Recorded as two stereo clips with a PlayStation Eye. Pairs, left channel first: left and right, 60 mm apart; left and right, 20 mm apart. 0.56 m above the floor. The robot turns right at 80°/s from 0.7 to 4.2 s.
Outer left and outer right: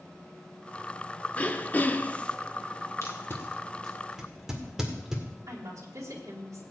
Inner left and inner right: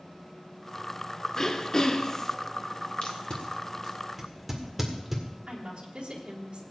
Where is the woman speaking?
60° right (ahead or behind), 2.5 m.